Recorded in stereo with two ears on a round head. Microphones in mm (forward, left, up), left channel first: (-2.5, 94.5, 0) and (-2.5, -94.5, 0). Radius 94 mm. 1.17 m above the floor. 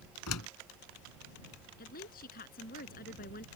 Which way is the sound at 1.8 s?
45° left (ahead or behind).